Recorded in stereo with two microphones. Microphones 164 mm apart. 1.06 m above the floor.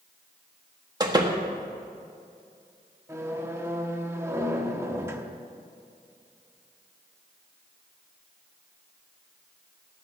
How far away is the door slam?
About 1.3 m.